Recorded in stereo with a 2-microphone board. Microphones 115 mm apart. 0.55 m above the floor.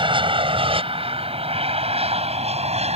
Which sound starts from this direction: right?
An aircraft, at 0.0 s.